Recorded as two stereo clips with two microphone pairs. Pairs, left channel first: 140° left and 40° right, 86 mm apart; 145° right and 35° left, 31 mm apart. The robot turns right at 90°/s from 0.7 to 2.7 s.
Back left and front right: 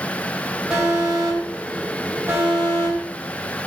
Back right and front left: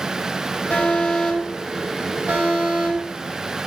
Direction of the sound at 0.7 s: 125° right.